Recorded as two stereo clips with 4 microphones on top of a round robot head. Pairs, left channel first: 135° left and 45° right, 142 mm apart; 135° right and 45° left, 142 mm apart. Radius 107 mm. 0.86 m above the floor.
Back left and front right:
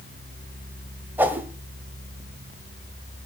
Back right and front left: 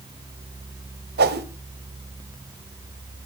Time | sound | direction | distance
1.2 | a whoosh | 35° left | 1.3 m